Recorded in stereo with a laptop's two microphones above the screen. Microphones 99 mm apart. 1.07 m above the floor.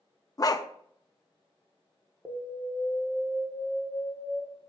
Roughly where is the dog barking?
Left.